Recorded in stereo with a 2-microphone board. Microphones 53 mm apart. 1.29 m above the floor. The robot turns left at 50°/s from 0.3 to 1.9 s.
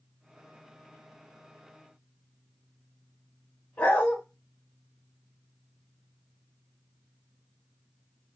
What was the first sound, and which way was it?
A dog barking, 25° left (ahead or behind).